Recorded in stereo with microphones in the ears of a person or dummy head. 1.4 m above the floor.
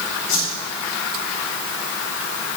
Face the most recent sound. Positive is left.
turn(degrees=75)  # may be behind; listen again after turning